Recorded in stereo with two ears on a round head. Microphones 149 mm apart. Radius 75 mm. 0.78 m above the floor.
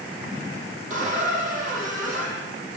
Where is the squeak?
50° right (ahead or behind), 5.5 m.